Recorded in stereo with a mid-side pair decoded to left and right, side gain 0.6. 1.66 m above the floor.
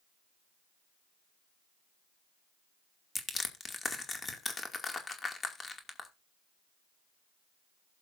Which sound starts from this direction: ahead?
Crushing, at 3.1 s.